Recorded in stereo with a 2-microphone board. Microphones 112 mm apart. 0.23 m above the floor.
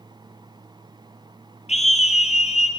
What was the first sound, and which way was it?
A scream, 75° left (ahead or behind).